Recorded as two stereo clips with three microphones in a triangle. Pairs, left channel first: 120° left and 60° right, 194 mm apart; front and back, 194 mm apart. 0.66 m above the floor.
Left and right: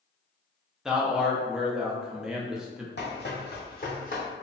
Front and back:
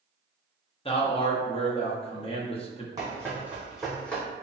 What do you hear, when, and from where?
0.8 s a man speaking: 25° left, 0.5 m
3.0 s running footsteps: 110° left, 1.3 m; by 4.2 s 80° left, 1.2 m